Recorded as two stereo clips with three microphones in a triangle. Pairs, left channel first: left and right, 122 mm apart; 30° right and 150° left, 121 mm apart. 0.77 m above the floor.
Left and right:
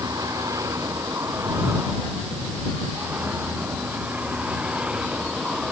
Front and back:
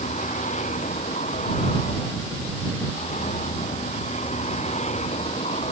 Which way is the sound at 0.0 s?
25° right.